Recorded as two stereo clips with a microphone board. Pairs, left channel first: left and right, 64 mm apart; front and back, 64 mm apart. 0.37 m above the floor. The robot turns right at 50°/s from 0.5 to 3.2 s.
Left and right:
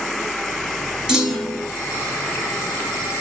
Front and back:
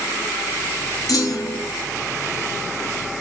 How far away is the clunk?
About 3.5 m.